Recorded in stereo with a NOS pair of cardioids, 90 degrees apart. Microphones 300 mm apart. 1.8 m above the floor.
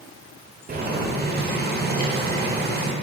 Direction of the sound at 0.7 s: 30° right.